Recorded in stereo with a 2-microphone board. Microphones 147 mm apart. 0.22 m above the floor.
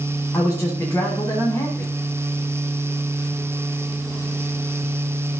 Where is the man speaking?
15° left (ahead or behind), 1.5 m.